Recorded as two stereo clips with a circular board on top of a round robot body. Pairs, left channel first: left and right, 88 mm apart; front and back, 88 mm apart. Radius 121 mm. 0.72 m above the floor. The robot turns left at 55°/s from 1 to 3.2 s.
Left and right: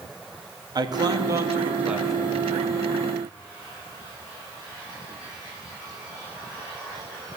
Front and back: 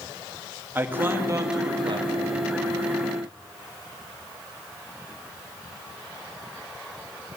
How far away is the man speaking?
About 1.5 m.